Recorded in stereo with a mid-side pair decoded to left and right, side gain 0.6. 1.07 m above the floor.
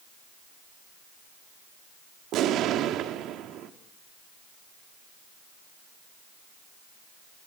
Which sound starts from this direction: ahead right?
An explosion, at 2.3 s.